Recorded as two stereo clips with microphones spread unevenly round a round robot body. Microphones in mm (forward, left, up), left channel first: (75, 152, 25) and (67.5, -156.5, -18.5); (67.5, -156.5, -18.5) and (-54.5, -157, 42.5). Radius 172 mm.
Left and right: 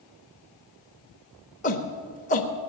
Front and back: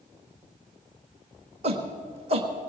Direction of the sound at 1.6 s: 140° left.